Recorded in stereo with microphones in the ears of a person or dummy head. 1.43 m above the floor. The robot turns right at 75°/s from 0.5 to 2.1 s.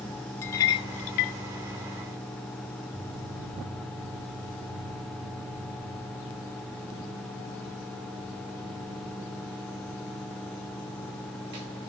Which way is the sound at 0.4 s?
15° left (ahead or behind).